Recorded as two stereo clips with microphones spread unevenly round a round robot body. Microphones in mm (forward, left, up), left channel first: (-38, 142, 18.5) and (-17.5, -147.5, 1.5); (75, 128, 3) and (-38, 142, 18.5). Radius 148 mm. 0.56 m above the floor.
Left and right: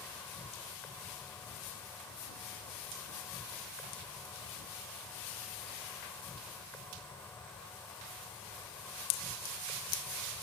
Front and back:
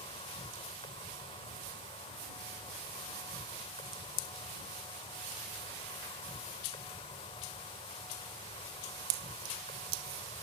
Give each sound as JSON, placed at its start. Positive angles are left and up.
{"t": 0.0, "sound": "an insect", "azimuth_deg": 10}